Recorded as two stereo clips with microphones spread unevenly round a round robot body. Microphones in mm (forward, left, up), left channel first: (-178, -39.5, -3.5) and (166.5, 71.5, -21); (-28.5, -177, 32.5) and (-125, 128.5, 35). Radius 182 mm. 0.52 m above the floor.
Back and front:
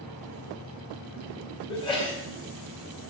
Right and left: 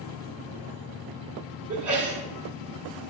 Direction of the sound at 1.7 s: 120° left.